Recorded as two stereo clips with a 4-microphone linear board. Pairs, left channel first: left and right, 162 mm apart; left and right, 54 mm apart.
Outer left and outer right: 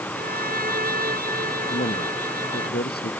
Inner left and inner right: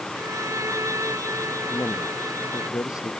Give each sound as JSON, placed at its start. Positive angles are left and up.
{"t": 0.1, "sound": "a violin", "side_deg": -65}
{"t": 1.7, "sound": "a man speaking", "side_deg": 85}